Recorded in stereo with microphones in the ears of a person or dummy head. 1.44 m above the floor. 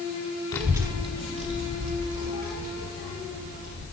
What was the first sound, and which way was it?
A child speaking, 15° left (ahead or behind).